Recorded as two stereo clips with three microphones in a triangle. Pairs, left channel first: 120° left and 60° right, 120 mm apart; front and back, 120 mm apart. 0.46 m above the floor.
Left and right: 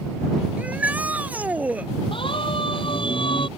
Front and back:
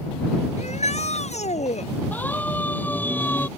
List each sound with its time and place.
0.6 s a shout: 15° left
2.1 s a siren: 75° left